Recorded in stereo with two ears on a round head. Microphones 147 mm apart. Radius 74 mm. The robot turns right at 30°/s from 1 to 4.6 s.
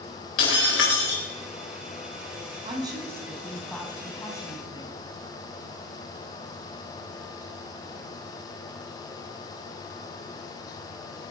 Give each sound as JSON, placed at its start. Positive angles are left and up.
{"t": 0.4, "sound": "breaking glass", "side_deg": 85, "distance_m": 5.0}
{"t": 2.6, "sound": "a woman speaking", "azimuth_deg": -30, "distance_m": 3.5}